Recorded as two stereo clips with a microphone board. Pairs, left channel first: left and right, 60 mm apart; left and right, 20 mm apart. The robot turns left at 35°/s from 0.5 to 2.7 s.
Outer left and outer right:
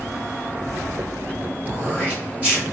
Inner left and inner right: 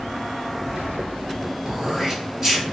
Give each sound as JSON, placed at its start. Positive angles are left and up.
{"t": 1.6, "sound": "throat clearing", "azimuth_deg": -115, "distance_m": 1.9}